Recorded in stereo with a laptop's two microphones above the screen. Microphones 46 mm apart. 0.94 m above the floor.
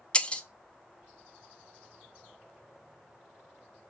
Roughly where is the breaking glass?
Left.